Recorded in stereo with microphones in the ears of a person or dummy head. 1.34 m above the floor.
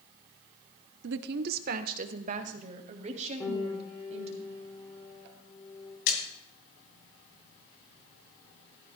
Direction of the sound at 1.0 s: 65° right (ahead or behind).